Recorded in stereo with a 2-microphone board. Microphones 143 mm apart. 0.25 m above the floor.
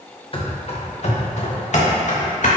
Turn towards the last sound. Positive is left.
turn(degrees=60)  # may be behind; listen again after turning